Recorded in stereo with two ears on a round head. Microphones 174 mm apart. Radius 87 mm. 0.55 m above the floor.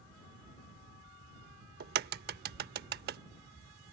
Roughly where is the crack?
Right.